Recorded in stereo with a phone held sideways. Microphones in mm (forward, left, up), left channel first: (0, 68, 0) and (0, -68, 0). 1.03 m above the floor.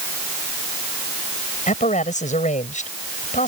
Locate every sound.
1.7 s a man speaking: 65° left (ahead or behind)